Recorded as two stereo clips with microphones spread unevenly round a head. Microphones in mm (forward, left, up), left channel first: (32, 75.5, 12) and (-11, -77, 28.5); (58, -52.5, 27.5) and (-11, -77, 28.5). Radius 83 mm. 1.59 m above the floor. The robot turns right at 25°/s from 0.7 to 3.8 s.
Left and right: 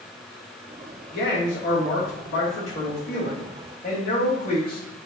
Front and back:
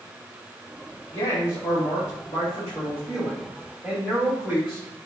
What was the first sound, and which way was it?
A man speaking, 45° left.